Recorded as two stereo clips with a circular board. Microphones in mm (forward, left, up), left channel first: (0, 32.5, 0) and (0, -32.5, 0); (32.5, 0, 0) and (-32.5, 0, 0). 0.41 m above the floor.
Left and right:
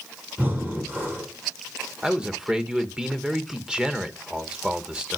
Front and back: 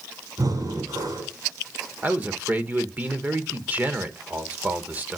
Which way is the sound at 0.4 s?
150° right.